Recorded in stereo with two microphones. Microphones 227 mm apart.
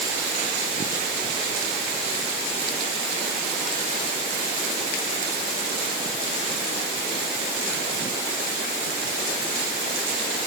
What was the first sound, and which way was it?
Only background noise.